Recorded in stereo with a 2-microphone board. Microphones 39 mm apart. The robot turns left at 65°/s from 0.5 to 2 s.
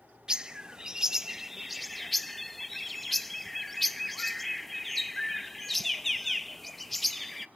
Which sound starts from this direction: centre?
A bird, at 0.3 s.